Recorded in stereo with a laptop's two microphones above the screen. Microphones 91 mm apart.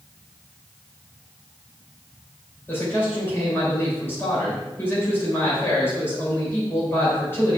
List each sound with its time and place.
2.7 s a man speaking: 25° left (ahead or behind), 5 m